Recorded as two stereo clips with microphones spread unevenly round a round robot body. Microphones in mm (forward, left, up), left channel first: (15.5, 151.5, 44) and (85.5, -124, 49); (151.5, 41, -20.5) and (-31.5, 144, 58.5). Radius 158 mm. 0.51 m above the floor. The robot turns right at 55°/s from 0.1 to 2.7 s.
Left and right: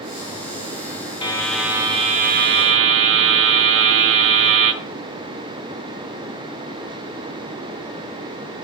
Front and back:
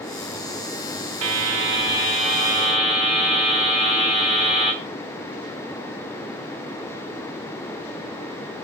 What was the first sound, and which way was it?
A buzzer, 175° left.